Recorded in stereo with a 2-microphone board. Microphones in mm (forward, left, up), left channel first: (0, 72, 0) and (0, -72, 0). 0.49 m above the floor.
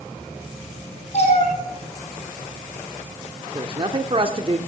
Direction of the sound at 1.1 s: 50° left (ahead or behind).